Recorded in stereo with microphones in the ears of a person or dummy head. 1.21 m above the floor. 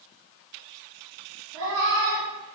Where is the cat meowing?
75° right (ahead or behind), 1.3 m.